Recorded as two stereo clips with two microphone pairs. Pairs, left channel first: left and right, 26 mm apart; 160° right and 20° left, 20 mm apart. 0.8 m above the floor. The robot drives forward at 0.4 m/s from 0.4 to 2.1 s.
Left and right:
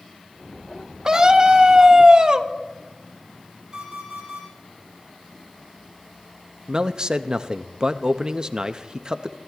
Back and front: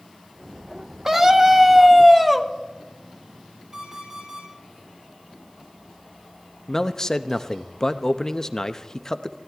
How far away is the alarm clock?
About 8.5 m.